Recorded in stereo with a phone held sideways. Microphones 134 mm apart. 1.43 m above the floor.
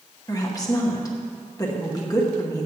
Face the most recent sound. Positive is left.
turn(degrees=25)  # may be behind; listen again after turning